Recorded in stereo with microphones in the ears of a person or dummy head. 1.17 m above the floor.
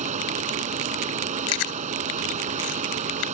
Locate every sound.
0.0 s a fan: 35° right (ahead or behind)
1.5 s chewing: 75° left (ahead or behind)